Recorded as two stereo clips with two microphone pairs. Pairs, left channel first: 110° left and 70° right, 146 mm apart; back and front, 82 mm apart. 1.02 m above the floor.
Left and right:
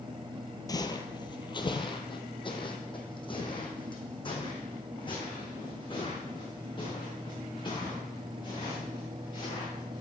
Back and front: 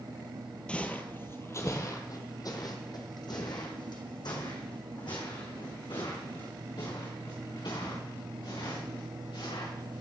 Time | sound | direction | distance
0.7 | footsteps | 120° left | 1.1 m